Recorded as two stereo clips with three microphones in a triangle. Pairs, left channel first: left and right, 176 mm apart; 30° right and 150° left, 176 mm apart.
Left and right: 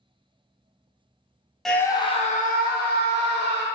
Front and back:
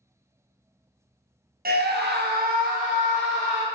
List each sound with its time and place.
1.6 s a scream: straight behind, 0.5 m; by 3.6 s 100° left, 1.3 m